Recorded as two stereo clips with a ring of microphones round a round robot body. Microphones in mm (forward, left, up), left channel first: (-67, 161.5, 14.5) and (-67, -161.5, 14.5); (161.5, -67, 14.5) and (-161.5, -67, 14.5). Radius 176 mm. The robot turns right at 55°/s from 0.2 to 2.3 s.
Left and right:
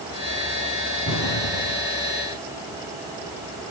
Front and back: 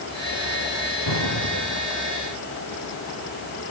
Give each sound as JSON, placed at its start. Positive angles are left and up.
{"t": 1.1, "sound": "an explosion", "azimuth_deg": 35, "distance_m": 2.5}